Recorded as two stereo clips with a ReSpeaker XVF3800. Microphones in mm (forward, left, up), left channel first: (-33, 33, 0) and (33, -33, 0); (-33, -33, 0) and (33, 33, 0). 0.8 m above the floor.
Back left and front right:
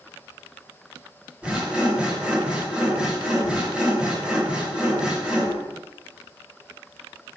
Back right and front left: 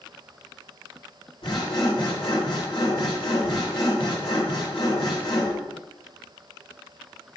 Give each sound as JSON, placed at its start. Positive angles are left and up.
{"t": 1.4, "sound": "sawing", "azimuth_deg": -120, "distance_m": 4.0}